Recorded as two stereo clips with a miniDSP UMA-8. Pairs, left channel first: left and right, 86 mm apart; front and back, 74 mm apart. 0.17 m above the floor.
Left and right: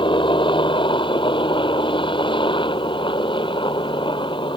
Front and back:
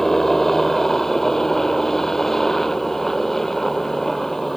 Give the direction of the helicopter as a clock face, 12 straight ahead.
9 o'clock.